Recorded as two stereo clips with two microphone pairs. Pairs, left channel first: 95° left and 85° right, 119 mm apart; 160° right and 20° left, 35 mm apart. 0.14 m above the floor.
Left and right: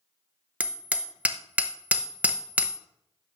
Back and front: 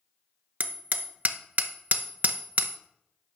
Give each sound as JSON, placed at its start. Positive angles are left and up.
{"t": 0.6, "sound": "hammering", "azimuth_deg": -10, "distance_m": 0.8}